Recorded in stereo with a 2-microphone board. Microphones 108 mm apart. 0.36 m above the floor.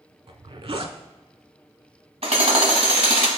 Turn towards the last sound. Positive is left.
turn(degrees=-75)  # may be behind; listen again after turning